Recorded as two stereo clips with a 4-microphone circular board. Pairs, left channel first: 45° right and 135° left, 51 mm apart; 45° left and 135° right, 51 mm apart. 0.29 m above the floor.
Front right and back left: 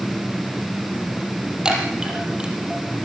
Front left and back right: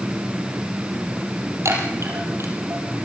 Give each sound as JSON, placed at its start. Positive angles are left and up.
{"t": 1.6, "sound": "a chime", "azimuth_deg": -150, "distance_m": 5.0}